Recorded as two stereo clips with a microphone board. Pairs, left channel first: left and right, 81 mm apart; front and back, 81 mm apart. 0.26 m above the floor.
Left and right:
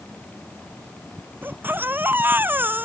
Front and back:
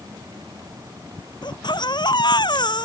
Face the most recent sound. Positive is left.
turn(degrees=-25)